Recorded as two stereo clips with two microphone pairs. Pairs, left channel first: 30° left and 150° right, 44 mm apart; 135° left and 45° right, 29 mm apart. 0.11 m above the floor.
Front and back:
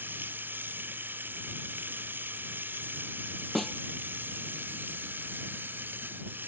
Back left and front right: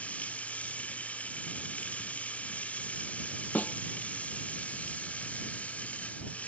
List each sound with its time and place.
0.0 s running water: 170° left
3.5 s a snare drum: 120° left